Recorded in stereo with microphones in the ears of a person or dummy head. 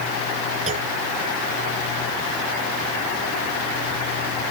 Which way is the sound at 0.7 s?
35° right (ahead or behind).